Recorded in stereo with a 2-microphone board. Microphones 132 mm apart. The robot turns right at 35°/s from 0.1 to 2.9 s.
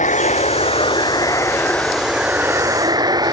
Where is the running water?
110° left; by 3.3 s 150° right.